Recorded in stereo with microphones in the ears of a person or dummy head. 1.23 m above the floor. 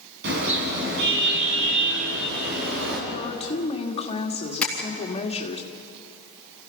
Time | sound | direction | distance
0.2 | a car horn | 60° right (ahead or behind) | 6 m
3.1 | a woman speaking | 35° left (ahead or behind) | 1.8 m
4.6 | tapping | 5° left (ahead or behind) | 3.5 m